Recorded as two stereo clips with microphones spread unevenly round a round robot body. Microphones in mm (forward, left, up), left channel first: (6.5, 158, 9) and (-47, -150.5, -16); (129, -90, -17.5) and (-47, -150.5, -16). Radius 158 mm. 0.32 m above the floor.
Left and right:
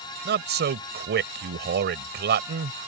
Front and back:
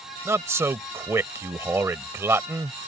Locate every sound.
0.2 s a man speaking: 95° right